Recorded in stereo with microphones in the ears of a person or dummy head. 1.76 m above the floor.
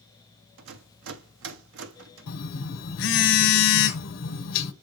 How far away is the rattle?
About 0.8 m.